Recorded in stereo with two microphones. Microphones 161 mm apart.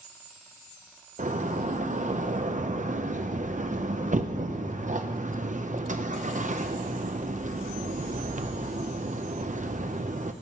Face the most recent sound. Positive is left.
turn(degrees=-50)  # may be behind; listen again after turning